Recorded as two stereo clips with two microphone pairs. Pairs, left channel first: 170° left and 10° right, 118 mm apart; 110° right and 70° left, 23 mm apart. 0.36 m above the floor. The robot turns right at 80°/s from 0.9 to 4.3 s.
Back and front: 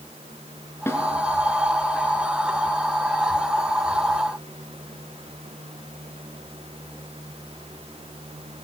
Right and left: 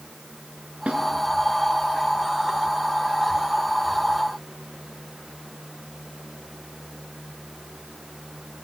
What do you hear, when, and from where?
0.9 s a snare drum: 105° left, 4.5 m; by 1.0 s 110° left, 4.5 m